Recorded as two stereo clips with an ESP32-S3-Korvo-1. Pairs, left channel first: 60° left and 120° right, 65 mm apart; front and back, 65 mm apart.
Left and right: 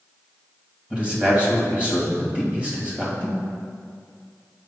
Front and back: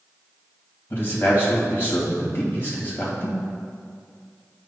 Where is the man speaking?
50° right, 2.0 m.